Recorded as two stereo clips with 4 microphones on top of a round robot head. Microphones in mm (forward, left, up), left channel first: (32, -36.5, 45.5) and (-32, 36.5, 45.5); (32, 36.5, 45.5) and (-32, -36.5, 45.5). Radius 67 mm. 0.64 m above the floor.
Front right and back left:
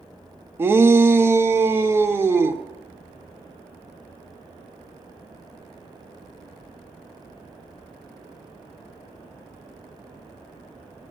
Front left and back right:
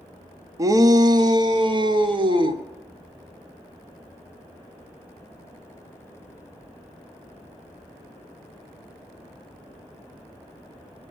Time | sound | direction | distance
0.6 | a shout | 170° right | 0.7 m